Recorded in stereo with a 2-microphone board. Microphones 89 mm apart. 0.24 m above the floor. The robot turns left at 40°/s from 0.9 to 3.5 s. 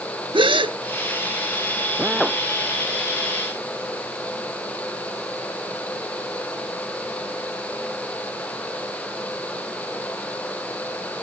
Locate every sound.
0.3 s a gasp: 75° right (ahead or behind)
2.0 s a drill: 10° right (ahead or behind); by 2.4 s 5° left (ahead or behind)